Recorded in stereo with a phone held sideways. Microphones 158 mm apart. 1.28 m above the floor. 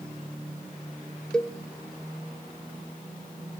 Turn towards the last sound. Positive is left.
turn(degrees=5)  # may be behind; listen again after turning